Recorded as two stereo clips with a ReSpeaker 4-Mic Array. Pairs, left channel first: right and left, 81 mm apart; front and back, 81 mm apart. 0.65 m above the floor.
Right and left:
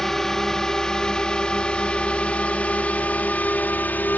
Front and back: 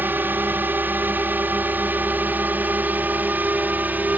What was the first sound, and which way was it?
A drone, 165° right.